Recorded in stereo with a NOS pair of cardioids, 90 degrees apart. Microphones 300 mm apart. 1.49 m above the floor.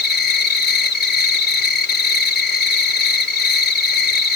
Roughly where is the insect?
Ahead left.